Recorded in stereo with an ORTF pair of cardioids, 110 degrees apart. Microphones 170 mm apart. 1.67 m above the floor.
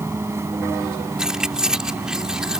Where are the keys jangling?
5° right.